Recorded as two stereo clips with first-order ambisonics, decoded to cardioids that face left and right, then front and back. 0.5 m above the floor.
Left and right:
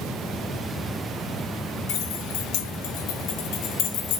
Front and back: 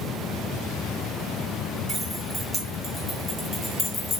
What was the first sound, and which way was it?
Keys jangling, 105° left.